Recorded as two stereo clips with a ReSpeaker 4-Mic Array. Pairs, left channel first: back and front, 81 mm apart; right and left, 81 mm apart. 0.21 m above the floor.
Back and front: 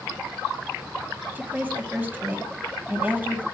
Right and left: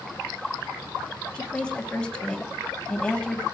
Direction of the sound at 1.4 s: 30° right.